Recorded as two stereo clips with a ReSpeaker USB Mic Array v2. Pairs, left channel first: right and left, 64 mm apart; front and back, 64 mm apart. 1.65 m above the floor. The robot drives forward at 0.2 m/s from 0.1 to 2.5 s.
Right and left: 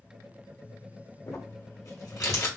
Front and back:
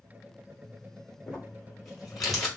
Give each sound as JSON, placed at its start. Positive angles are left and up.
{"t": 1.3, "sound": "crumpling", "azimuth_deg": -80, "distance_m": 2.5}